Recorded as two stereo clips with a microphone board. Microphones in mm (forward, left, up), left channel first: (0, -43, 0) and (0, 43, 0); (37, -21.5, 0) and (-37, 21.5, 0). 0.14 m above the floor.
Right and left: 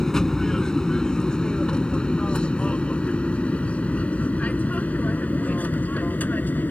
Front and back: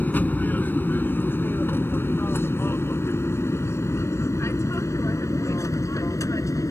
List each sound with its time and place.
0.0 s an aircraft: 15° right; by 6.7 s 35° right